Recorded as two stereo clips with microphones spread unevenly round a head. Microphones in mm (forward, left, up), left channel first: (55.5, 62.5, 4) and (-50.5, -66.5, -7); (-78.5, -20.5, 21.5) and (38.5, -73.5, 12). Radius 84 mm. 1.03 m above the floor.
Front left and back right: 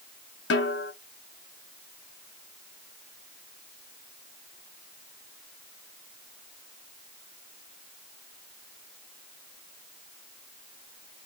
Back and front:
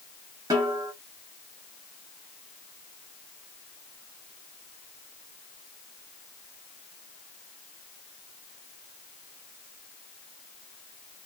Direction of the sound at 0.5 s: 45° left.